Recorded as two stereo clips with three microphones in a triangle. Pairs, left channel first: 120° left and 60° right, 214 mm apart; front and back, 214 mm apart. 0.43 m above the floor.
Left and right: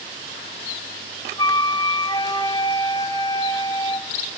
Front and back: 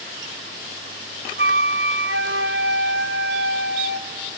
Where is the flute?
175° right, 0.7 m.